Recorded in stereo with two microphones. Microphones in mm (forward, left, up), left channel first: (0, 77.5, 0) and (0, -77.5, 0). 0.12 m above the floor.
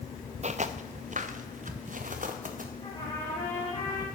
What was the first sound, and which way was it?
Footsteps, 50° right (ahead or behind).